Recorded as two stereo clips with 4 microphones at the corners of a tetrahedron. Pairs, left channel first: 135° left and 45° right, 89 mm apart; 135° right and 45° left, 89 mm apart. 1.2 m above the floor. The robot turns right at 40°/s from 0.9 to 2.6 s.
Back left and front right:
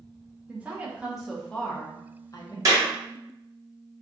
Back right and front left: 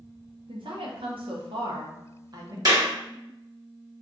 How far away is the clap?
About 1.1 m.